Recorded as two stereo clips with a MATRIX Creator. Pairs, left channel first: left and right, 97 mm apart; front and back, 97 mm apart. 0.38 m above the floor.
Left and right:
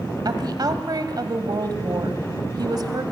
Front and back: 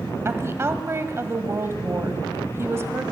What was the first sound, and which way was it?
A woman speaking, 125° right.